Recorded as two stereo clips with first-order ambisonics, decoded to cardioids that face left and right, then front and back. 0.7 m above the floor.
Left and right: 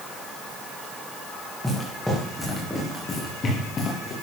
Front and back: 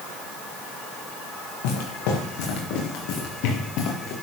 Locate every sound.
1.6 s footsteps: straight ahead, 6 m; by 4.1 s 30° left, 4 m